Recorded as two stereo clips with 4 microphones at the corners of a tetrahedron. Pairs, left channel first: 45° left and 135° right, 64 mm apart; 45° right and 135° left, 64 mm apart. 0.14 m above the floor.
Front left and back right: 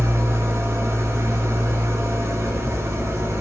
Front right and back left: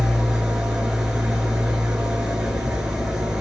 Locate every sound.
0.0 s an engine running: 150° right, 0.8 m